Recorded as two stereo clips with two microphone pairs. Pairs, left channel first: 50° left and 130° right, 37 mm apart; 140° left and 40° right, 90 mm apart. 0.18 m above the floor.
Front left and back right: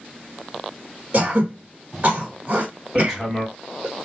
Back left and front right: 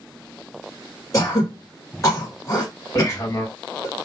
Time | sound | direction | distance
1.1 | throat clearing | 175° right | 1.5 m
3.0 | hammering | 150° left | 1.5 m